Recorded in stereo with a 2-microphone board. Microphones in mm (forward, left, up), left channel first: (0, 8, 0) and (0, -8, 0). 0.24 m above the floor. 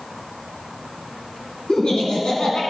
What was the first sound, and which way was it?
Laughter, 60° left (ahead or behind).